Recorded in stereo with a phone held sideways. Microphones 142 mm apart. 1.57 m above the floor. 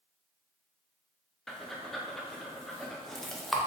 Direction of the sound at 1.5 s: Centre (ahead or behind).